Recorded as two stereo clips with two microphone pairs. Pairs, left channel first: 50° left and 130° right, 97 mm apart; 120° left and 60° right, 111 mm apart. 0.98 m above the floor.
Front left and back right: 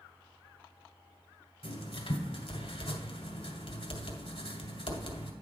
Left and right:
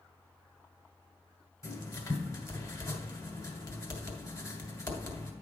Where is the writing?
65° left, 1.8 m.